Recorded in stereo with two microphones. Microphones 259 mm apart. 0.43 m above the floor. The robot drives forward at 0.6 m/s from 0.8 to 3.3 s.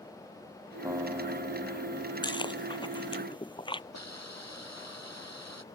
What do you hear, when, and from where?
0.8 s a guitar: 10° right (ahead or behind)
2.2 s chewing: 15° left (ahead or behind); by 3.8 s 20° left (ahead or behind)
3.9 s a hiss: 85° left